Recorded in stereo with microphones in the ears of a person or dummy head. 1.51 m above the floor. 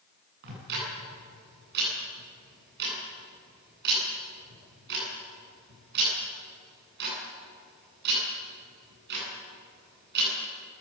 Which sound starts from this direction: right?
Ticking, at 0.4 s.